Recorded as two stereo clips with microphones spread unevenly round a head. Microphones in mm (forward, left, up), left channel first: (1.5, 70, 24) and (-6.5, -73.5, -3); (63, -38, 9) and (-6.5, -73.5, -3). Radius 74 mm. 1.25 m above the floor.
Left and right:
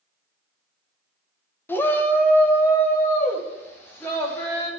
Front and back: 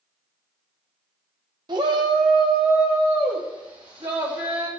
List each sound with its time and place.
1.7 s a shout: 165° left, 1.0 m